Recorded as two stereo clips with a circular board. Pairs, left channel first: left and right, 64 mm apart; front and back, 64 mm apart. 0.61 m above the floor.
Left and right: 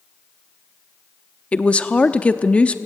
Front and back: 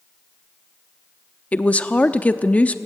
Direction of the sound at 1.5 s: 45° left.